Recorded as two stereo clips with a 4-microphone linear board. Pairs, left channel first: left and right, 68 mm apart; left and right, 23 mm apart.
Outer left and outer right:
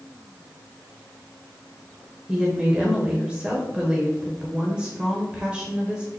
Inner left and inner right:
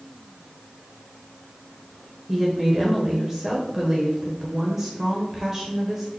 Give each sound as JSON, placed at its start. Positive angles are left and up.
{"t": 2.3, "sound": "a woman speaking", "side_deg": -15, "distance_m": 1.1}